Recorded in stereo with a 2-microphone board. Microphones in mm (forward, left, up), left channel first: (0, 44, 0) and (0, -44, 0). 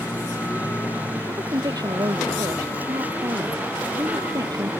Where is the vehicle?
20° right (ahead or behind).